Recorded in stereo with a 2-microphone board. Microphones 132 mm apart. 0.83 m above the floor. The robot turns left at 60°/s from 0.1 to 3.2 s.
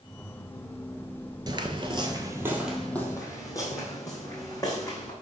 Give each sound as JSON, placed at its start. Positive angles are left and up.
{"t": 1.5, "sound": "footsteps", "side_deg": -35, "distance_m": 0.9}